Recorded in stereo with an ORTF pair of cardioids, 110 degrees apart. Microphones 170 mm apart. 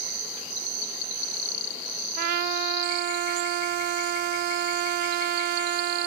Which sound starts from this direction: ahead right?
A trumpet, at 2.2 s.